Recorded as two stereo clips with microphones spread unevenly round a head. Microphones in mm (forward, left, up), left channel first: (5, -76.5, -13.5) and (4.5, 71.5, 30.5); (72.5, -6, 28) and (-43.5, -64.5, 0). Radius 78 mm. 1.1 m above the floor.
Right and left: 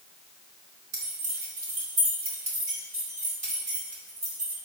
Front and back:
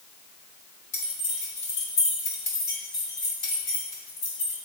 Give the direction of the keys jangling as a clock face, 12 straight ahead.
10 o'clock.